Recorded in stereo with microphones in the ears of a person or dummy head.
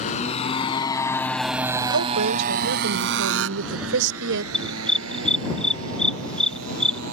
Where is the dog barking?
5° left (ahead or behind).